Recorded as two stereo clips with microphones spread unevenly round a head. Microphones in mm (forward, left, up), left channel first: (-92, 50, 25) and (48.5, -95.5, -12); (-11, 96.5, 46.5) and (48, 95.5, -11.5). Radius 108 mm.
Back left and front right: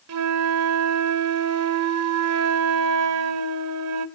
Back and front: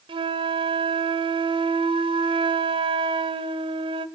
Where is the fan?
No fan in this recording.